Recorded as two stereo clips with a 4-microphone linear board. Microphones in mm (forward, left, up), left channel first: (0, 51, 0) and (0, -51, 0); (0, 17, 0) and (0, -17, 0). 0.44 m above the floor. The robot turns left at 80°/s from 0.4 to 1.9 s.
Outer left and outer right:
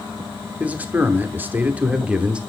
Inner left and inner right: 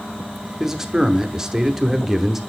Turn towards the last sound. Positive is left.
turn(degrees=-10)  # may be behind; listen again after turning